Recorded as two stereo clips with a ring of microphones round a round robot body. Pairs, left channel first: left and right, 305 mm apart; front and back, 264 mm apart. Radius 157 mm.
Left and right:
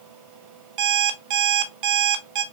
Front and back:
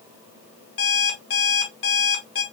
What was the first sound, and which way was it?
An alarm clock, 55° right.